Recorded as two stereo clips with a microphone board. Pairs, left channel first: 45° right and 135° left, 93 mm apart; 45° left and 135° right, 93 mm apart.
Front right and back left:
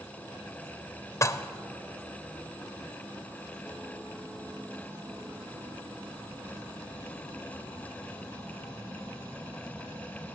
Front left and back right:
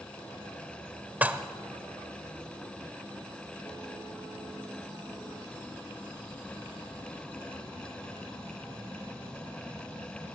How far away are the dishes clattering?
About 0.8 m.